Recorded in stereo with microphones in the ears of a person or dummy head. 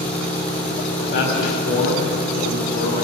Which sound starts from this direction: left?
A man speaking, at 1.0 s.